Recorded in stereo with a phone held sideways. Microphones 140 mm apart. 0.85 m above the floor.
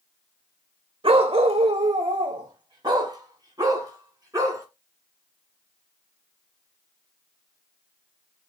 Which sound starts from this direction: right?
A dog barking, at 1.0 s.